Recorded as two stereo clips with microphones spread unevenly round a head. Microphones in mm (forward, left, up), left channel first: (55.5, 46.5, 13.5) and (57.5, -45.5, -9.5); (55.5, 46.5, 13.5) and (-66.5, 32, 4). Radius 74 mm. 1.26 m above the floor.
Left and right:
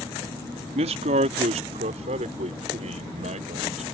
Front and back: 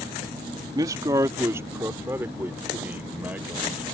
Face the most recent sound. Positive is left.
turn(degrees=-90)